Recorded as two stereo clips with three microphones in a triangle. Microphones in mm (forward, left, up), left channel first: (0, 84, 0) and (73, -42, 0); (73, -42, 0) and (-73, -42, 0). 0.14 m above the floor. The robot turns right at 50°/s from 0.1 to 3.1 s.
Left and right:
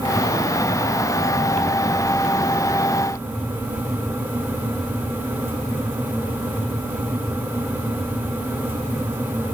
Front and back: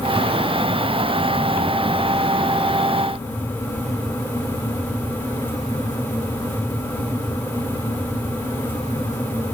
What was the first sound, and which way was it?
Only background noise.